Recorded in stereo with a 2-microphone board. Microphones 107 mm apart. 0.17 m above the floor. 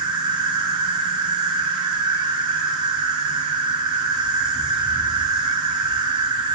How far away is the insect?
About 1.0 m.